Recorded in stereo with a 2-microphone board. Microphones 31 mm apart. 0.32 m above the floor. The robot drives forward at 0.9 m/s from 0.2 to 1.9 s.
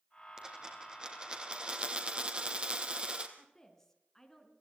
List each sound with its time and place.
0.4 s a dropped coin: 20° right (ahead or behind), 3.5 m; by 3.3 s 30° right (ahead or behind), 2.5 m
3.4 s a woman speaking: 10° left (ahead or behind), 3.5 m